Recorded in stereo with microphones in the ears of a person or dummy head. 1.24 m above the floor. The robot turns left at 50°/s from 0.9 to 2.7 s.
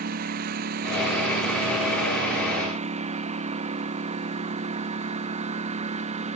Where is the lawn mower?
50° right; by 6.4 s 140° right.